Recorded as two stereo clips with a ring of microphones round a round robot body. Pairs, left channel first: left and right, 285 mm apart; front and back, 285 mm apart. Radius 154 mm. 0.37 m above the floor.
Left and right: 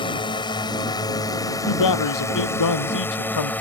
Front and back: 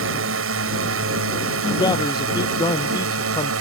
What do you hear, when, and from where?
0.0 s a drone: 160° left; by 3.6 s 175° left
1.7 s a man speaking: 80° left